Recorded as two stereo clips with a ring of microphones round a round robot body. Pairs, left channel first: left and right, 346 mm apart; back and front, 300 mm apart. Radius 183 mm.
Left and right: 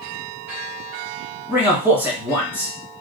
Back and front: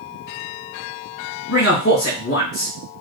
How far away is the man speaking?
About 1.7 m.